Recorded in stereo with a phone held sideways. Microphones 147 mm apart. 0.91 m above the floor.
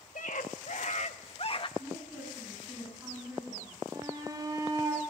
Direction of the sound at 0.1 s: 70° left (ahead or behind).